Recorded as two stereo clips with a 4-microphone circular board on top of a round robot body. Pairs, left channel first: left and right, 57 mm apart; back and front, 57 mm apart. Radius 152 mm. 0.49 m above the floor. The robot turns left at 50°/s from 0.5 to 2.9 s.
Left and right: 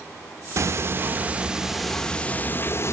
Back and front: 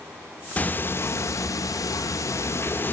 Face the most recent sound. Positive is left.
turn(degrees=125)